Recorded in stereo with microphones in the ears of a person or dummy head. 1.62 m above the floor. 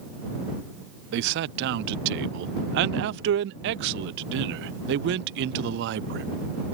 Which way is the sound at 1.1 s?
65° right (ahead or behind).